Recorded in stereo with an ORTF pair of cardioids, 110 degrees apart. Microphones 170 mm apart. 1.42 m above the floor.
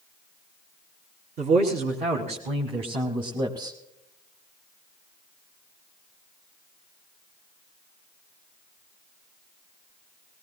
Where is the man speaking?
55° right, 3 m; by 3.8 s 20° right, 1.8 m.